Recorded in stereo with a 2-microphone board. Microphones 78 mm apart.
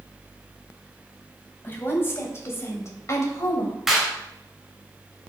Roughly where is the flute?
No flute in this recording.